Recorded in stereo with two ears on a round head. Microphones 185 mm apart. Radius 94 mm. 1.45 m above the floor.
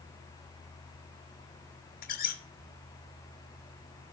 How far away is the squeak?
About 2 m.